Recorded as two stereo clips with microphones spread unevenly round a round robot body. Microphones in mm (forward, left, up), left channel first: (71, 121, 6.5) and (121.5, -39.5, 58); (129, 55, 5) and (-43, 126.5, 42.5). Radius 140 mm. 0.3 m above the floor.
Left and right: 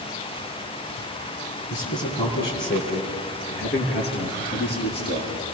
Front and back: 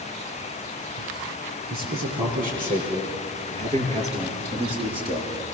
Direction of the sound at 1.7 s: 120° left.